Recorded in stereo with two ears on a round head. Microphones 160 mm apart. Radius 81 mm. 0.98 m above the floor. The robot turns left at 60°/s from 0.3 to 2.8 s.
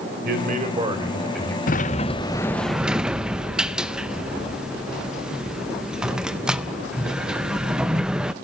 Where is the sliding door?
65° left, 0.5 m; by 8.3 s 5° right, 0.5 m.